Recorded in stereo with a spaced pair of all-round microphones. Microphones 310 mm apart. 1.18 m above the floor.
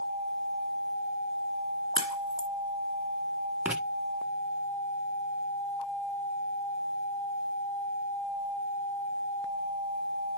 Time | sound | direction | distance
1.9 | a crack | 50° left (ahead or behind) | 1.4 m
3.6 | writing | 5° right (ahead or behind) | 1.2 m